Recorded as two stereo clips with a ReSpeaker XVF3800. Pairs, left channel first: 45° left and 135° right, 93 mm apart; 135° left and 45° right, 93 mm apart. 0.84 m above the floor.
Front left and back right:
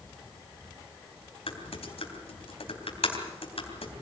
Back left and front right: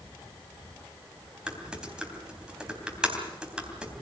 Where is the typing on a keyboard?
35° left, 3 m.